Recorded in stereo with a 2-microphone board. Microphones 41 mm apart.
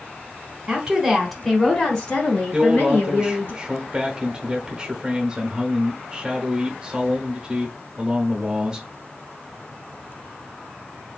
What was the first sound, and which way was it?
A woman speaking, 20° right (ahead or behind).